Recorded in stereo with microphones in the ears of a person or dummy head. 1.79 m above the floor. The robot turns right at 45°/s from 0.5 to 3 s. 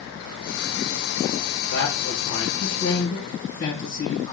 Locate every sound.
1.7 s a man speaking: 85° left, 1.3 m; by 4.3 s 145° left, 1.3 m